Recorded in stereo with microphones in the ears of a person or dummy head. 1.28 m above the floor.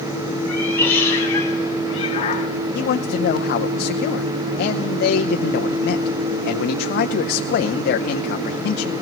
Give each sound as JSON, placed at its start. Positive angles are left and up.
{"t": 0.5, "sound": "a cat meowing", "side_deg": 10, "distance_m": 2.0}
{"t": 2.8, "sound": "a man speaking", "side_deg": 65, "distance_m": 0.6}